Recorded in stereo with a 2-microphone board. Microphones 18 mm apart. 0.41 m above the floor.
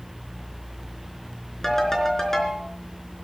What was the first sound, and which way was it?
A ringtone, 25° left (ahead or behind).